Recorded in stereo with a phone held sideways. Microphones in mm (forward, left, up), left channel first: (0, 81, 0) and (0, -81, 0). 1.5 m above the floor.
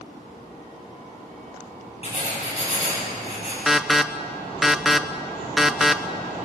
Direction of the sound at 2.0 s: 40° left (ahead or behind).